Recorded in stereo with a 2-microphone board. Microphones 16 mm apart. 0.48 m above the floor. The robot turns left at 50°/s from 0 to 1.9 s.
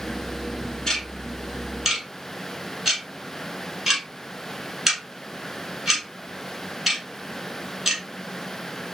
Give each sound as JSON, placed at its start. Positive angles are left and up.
{"t": 0.9, "sound": "ticking", "side_deg": 25, "distance_m": 1.3}